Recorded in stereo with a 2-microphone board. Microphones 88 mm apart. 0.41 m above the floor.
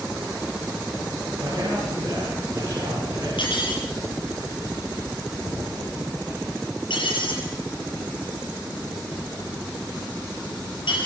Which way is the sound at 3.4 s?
85° left.